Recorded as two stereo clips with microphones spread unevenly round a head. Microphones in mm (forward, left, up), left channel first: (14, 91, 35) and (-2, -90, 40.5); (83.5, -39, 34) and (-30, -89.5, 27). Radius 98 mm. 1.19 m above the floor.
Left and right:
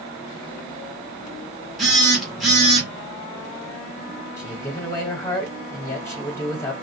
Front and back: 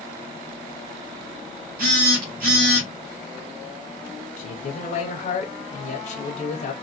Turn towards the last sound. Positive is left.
turn(degrees=15)